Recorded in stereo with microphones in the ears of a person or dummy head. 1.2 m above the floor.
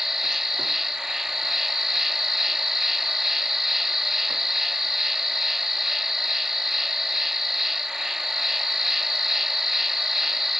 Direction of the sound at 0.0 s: Centre (ahead or behind).